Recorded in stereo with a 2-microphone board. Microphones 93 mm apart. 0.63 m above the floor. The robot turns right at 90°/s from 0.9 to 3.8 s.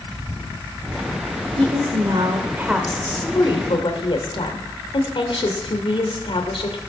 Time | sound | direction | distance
1.6 | a woman speaking | 115° right | 1.7 m